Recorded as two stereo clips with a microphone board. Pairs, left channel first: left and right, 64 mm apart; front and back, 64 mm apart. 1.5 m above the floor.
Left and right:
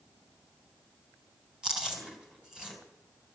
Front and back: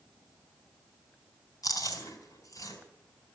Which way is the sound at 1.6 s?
10° right.